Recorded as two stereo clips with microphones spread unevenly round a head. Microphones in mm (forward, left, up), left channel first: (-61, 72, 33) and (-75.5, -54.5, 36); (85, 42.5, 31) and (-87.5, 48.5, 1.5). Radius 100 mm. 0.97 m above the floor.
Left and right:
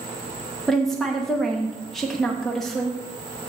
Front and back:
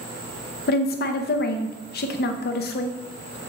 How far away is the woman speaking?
About 0.7 m.